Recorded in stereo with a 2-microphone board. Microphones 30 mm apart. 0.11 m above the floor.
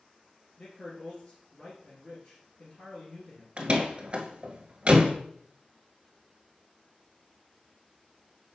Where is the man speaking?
40° left (ahead or behind), 2 m.